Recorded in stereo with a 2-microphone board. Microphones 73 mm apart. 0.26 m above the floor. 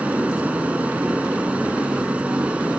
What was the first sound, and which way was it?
An aircraft, 20° right (ahead or behind).